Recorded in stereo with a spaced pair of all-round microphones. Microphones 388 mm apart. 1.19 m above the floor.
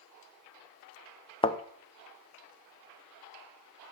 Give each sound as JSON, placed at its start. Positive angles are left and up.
{"t": 1.4, "sound": "a thud", "side_deg": 15, "distance_m": 0.5}